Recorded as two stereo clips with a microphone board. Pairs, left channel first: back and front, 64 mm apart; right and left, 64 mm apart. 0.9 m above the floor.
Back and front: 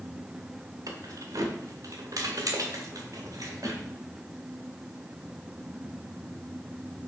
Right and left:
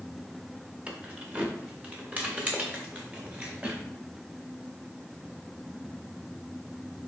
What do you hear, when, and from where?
0.9 s keys jangling: 20° left, 1.7 m; by 3.8 s 25° left, 3 m